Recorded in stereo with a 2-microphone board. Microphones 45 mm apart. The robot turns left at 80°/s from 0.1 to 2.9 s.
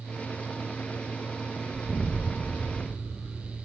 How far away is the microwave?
No microwave in this recording.